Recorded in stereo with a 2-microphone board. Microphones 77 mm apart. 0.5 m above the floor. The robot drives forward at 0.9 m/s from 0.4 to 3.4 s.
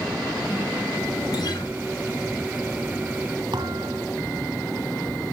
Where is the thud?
75° right (ahead or behind), 2.5 m.